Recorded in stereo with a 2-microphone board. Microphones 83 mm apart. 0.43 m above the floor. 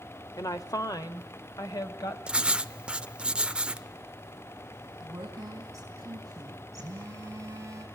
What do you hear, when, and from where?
0.4 s a woman speaking: 45° left (ahead or behind), 1.1 m
2.3 s writing: 15° right (ahead or behind), 0.5 m
5.0 s a woman speaking: 40° right (ahead or behind), 4 m
6.8 s a phone buzzing: 35° right (ahead or behind), 4.5 m